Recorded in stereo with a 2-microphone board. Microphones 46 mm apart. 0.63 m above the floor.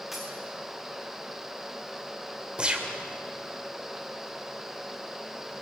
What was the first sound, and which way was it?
A dropped coin, 5° right (ahead or behind).